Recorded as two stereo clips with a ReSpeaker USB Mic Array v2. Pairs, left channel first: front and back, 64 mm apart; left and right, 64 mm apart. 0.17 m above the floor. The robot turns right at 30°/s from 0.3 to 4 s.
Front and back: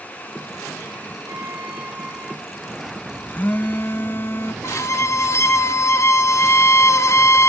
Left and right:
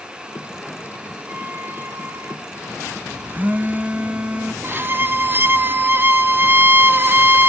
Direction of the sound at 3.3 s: 50° right.